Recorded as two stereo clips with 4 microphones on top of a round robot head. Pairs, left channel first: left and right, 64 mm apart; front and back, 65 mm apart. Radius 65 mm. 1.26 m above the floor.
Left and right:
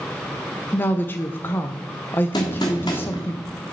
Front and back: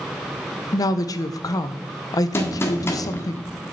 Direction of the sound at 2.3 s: 45° left.